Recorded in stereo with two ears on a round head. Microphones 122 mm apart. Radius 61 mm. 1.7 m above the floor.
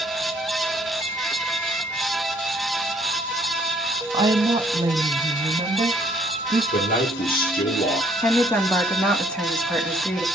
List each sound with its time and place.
4.1 s a woman speaking: 35° right (ahead or behind), 1.6 m
6.7 s a man speaking: 70° left (ahead or behind), 2 m
8.2 s a woman speaking: 5° left (ahead or behind), 2 m